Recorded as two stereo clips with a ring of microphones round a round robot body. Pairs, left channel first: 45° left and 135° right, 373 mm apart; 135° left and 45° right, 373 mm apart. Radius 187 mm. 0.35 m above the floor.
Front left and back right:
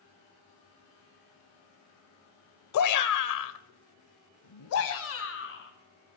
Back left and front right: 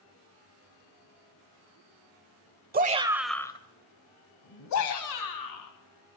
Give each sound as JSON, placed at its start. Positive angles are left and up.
{"t": 2.7, "sound": "a shout", "azimuth_deg": 15, "distance_m": 1.1}